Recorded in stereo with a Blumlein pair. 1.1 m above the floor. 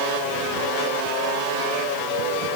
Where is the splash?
I don't hear a splash.